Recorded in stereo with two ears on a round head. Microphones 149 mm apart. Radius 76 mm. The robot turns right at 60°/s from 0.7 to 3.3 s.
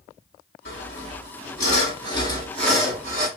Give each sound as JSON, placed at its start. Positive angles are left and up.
{"t": 0.7, "sound": "sawing", "azimuth_deg": 55, "distance_m": 3.0}